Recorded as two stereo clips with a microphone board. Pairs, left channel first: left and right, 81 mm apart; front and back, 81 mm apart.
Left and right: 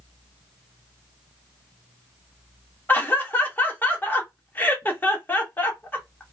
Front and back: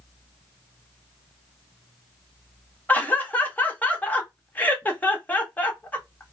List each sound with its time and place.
2.9 s laughter: 50° left, 0.8 m